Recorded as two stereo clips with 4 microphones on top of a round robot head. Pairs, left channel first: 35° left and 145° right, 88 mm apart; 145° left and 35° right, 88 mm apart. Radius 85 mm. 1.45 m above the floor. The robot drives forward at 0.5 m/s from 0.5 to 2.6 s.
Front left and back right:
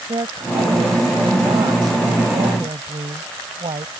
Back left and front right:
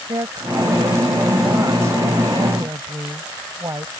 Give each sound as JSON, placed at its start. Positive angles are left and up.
{"t": 0.1, "sound": "a woman speaking", "azimuth_deg": -95}